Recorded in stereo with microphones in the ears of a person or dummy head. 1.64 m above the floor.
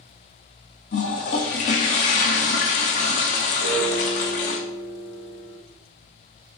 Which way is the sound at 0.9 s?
35° left (ahead or behind).